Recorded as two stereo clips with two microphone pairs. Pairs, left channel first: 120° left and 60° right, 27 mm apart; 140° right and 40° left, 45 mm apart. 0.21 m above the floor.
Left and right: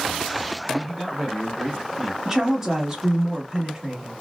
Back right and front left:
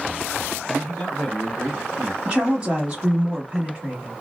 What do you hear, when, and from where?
0.7 s a man speaking: 115° right, 1.3 m; by 2.1 s 5° right, 1.3 m
2.2 s a woman speaking: 15° right, 1.1 m